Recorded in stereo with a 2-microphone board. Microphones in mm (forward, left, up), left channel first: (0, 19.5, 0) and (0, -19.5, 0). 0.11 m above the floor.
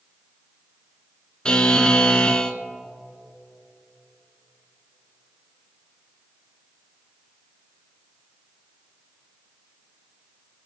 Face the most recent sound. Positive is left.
turn(degrees=20)  # may be behind; listen again after turning